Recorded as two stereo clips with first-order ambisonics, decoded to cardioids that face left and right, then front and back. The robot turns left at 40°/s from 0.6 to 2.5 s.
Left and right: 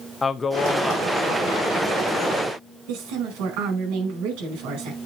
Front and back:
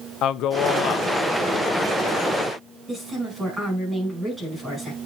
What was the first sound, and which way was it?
A man speaking, 15° left.